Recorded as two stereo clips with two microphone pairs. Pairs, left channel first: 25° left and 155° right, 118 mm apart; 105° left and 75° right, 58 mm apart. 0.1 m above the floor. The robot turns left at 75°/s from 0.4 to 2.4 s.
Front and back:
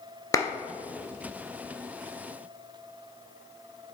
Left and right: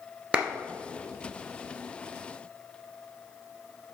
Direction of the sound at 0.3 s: 20° right.